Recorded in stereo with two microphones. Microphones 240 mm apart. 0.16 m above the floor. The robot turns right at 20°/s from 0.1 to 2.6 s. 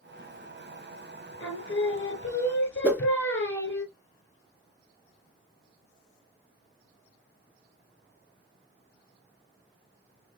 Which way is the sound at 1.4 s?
60° left (ahead or behind).